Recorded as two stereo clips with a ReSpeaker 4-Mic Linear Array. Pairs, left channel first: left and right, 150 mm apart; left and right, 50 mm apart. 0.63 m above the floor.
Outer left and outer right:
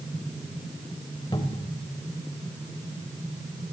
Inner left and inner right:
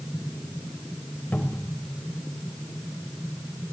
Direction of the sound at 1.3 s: 30° left (ahead or behind).